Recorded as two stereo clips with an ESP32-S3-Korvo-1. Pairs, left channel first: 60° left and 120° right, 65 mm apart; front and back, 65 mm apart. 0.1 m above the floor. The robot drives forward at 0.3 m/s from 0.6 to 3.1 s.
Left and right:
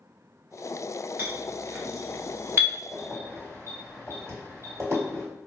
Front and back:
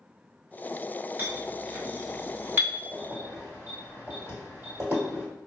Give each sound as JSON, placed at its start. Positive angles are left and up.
{"t": 1.2, "sound": "a clink", "azimuth_deg": -150, "distance_m": 1.3}
{"t": 2.9, "sound": "keys jangling", "azimuth_deg": -155, "distance_m": 1.6}